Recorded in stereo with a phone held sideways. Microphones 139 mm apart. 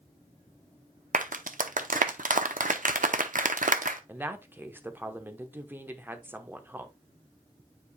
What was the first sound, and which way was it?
A clap, 75° right (ahead or behind).